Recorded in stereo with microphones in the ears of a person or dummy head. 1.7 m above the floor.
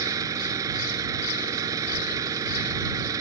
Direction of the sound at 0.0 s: 25° right (ahead or behind).